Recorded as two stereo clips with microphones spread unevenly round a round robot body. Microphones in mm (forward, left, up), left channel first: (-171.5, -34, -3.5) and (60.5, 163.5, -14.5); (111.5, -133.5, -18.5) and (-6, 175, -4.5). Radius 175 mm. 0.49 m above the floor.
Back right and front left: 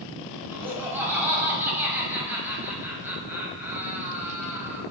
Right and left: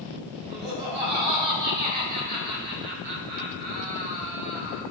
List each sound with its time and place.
0.5 s laughter: 125° left, 2.5 m